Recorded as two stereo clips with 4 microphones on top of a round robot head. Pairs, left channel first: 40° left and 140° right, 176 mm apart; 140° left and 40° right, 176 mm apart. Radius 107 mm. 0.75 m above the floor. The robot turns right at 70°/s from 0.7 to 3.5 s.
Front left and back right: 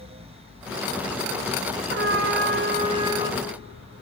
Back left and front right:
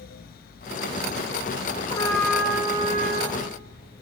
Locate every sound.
1.9 s a trumpet: 160° right, 0.6 m; by 3.4 s 55° right, 0.6 m